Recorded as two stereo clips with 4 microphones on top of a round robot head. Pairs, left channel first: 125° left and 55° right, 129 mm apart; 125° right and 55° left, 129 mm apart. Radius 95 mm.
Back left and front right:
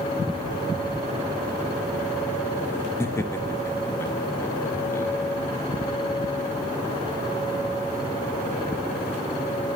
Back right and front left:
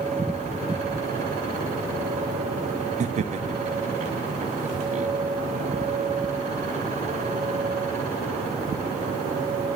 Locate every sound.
3.0 s laughter: 60° left, 1.4 m